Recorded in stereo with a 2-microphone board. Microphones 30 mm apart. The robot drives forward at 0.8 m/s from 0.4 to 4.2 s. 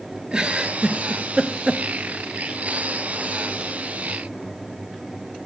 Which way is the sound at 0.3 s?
25° right (ahead or behind).